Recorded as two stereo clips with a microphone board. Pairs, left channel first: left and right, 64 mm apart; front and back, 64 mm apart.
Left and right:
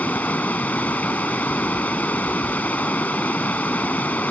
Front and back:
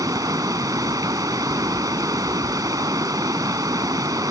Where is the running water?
155° left.